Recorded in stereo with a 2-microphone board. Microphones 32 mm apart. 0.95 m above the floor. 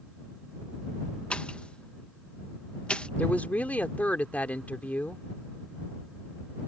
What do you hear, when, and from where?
1.3 s a pop: 35° left (ahead or behind)
3.2 s a woman speaking: 50° left (ahead or behind)